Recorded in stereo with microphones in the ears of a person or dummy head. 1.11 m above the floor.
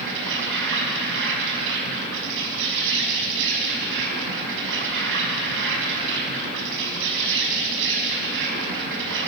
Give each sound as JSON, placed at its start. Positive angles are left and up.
{"t": 0.0, "sound": "an insect", "side_deg": -65, "distance_m": 6.0}